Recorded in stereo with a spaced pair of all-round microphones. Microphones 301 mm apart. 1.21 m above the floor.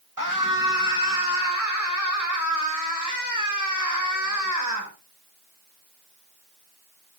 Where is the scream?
85° right, 8.5 m; by 4.9 s 70° right (ahead or behind), 6.5 m.